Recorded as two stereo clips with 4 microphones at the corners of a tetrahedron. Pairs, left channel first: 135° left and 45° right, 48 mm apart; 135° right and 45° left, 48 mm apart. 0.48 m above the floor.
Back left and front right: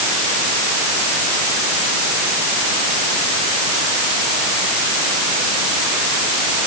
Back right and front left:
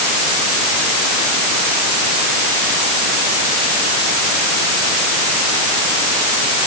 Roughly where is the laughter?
No laughter in this recording.